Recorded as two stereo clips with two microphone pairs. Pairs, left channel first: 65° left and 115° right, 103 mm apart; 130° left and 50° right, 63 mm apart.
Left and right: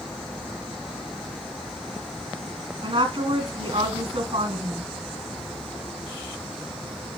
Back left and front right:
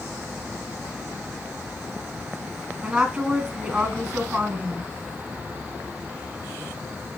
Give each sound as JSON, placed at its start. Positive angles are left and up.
{"t": 2.8, "sound": "a woman speaking", "azimuth_deg": -130, "distance_m": 2.5}